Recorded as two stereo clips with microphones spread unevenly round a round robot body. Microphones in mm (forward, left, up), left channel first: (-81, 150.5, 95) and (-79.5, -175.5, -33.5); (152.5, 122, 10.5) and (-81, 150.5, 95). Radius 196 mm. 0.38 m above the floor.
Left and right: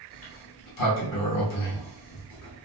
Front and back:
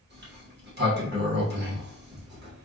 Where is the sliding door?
120° left, 1.2 m.